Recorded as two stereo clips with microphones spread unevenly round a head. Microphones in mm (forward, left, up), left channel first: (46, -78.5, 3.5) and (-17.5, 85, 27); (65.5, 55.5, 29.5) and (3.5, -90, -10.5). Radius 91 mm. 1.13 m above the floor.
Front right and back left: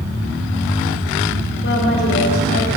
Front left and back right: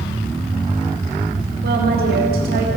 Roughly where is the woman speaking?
Right.